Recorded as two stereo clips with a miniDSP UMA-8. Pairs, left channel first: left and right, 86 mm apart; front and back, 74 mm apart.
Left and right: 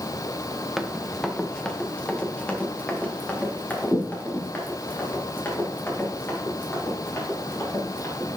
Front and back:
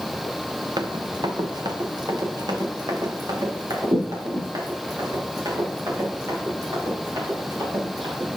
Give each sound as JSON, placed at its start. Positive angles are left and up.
{"t": 0.8, "sound": "running footsteps", "azimuth_deg": -175, "distance_m": 1.1}